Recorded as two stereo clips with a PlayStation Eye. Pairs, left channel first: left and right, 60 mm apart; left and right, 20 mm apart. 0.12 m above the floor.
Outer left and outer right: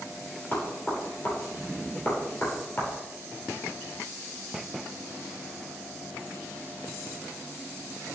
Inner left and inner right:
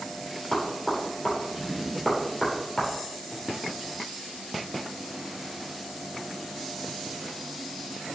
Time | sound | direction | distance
0.5 | knocking | 35° left (ahead or behind) | 3 m